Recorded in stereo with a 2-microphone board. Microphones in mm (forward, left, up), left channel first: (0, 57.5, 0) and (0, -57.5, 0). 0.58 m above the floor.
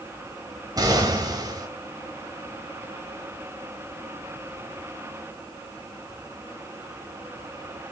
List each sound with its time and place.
0.8 s an explosion: 35° right (ahead or behind), 1.5 m